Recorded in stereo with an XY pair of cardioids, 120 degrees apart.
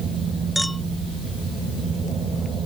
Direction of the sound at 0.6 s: Straight ahead.